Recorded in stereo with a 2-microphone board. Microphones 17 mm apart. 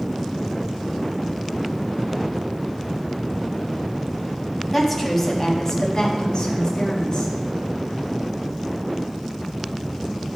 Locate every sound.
4.7 s a woman speaking: 5° left (ahead or behind), 1.2 m; by 7.3 s 60° left (ahead or behind), 2.0 m